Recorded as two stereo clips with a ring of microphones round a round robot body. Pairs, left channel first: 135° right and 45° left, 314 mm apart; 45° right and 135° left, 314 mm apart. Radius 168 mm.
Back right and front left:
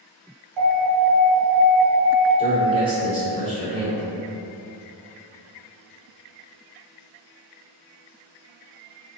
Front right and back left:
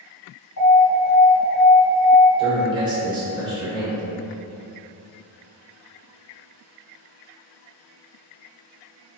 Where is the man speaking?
85° left, 1.0 m.